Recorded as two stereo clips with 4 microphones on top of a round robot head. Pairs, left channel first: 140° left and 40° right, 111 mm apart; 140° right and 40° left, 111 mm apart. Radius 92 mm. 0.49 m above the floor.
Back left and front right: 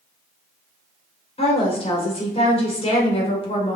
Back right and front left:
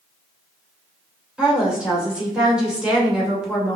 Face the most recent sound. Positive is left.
turn(degrees=120)